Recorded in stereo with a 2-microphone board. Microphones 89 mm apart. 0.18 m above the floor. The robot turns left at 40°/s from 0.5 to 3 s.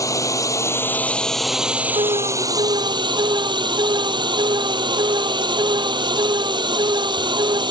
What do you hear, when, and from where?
0.0 s a drone: 40° left; by 7.7 s 60° right
1.9 s an alarm: 80° right; by 7.6 s 120° right